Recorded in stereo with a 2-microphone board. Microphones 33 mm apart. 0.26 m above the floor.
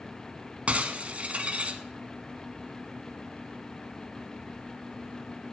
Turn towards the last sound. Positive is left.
turn(degrees=-40)  # may be behind; listen again after turning